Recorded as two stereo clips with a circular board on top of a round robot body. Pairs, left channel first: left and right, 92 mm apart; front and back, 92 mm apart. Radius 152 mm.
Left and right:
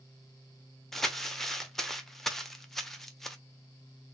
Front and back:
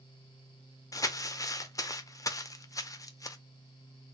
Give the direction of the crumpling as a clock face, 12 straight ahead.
12 o'clock.